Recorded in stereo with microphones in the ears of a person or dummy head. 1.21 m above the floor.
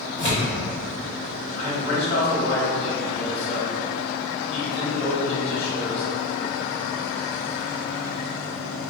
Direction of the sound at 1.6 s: 35° left (ahead or behind).